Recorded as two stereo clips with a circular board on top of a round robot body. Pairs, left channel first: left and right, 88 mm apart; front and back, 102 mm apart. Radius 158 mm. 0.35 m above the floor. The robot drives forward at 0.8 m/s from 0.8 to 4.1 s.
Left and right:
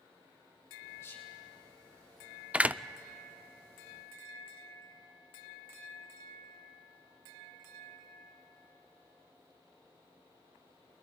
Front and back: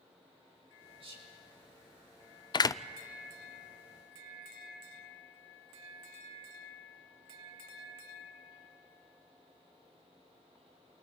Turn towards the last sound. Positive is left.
turn(degrees=-170)